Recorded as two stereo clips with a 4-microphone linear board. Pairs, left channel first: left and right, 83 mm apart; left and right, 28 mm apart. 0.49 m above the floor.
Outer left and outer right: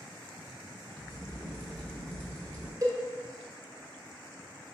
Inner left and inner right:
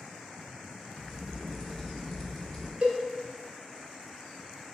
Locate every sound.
1.0 s a crack: 15° left (ahead or behind), 1.3 m
2.8 s a cowbell: 45° right (ahead or behind), 1.2 m